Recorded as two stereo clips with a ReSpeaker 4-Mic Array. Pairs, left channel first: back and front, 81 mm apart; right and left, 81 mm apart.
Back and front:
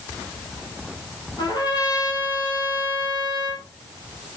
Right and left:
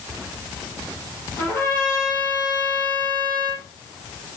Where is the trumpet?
155° right, 5 m.